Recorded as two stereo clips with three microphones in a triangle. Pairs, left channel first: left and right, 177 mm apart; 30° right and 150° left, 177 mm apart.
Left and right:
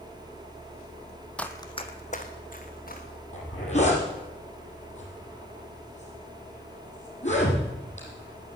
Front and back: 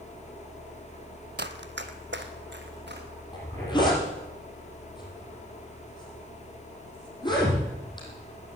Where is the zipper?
35° left, 5 m.